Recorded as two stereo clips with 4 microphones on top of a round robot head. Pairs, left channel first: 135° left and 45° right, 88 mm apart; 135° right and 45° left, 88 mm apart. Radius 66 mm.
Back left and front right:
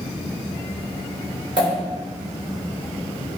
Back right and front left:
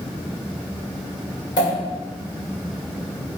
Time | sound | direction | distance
1.6 | a pop | 90° right | 1.9 m